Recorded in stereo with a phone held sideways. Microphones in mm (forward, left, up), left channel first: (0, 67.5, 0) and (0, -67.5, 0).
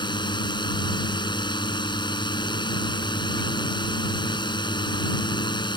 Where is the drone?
35° left (ahead or behind).